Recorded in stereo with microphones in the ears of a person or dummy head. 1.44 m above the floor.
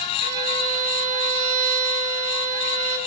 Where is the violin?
55° right (ahead or behind), 7 m.